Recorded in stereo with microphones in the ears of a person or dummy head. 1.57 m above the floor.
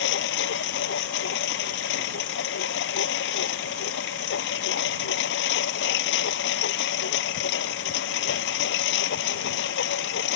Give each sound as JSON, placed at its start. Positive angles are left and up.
{"t": 0.0, "sound": "a lawn mower", "side_deg": 75}